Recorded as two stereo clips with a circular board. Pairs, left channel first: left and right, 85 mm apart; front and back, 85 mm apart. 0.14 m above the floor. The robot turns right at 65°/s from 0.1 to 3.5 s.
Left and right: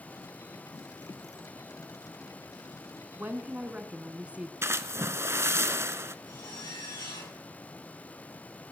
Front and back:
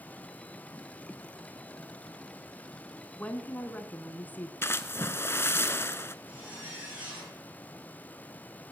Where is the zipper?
110° left, 9 m.